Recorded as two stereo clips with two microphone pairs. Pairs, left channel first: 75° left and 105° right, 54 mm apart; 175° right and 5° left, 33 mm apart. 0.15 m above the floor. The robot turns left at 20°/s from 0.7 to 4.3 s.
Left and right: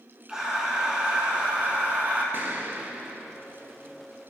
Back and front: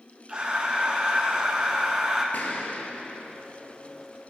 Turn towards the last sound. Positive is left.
turn(degrees=170)